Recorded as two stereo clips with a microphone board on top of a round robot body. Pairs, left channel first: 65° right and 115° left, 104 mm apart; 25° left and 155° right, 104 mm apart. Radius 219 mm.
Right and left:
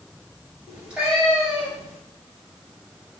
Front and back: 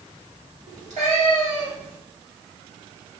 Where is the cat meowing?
165° right, 3 m.